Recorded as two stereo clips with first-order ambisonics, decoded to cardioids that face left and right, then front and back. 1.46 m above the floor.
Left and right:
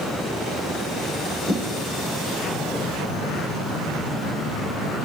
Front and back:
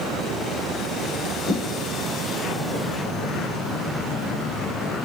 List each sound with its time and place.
1.5 s footsteps: 25° right, 1.5 m; by 5.1 s 140° right, 2 m